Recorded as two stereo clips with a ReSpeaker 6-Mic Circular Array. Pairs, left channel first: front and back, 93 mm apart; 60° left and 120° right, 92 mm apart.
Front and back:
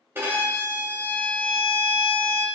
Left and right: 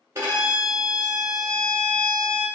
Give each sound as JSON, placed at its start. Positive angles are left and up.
{"t": 0.1, "sound": "a violin", "azimuth_deg": -150, "distance_m": 1.0}